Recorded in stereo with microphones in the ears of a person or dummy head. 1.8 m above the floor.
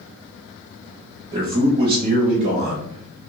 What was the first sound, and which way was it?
A man speaking, 35° right (ahead or behind).